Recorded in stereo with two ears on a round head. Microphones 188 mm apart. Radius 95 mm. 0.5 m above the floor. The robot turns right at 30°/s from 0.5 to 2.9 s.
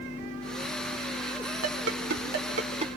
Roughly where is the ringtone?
Right.